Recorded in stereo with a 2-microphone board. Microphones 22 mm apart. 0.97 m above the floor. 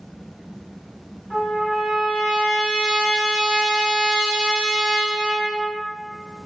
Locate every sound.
1.3 s a trumpet: 80° right, 1.6 m